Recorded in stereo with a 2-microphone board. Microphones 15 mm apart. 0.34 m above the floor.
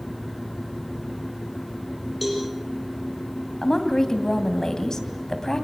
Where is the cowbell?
5° right (ahead or behind), 6.5 m.